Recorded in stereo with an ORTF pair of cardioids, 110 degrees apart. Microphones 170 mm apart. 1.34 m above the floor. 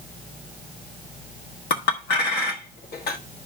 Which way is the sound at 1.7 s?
70° left.